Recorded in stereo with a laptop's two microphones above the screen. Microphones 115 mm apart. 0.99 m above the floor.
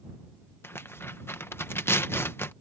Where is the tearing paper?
20° left (ahead or behind).